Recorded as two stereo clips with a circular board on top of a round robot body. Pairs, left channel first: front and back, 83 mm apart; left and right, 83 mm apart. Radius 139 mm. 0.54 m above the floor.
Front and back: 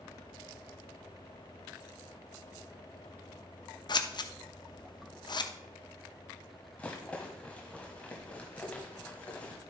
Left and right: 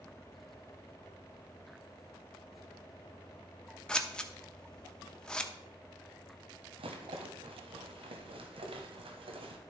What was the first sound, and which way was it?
Scissors, 10° left.